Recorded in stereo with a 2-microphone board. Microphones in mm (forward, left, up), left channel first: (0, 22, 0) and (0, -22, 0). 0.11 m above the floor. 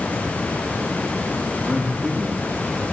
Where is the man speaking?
10° right (ahead or behind), 7 m.